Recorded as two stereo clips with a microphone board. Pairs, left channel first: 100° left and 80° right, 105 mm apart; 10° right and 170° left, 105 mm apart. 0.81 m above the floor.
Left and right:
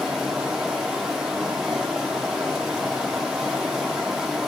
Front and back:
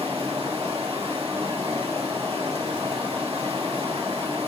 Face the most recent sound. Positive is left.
turn(degrees=-165)